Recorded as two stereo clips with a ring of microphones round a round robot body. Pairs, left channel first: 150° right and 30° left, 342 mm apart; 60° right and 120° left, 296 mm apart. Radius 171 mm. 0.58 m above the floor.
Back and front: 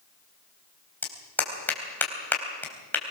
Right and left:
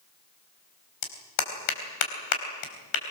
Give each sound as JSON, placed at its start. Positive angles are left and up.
{"t": 1.0, "sound": "a clap", "azimuth_deg": -65, "distance_m": 4.0}